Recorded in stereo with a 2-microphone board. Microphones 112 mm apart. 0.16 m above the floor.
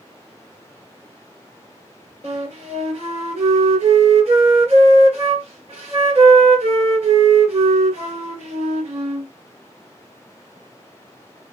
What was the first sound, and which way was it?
A flute, 55° right (ahead or behind).